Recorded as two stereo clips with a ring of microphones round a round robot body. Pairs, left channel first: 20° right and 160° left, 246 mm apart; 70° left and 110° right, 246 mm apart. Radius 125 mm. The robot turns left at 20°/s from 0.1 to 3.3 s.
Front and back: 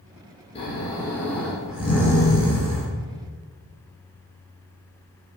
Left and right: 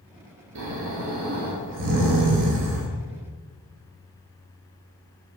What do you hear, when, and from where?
0.6 s snoring: 90° right, 4.5 m; by 2.9 s 135° right, 4.5 m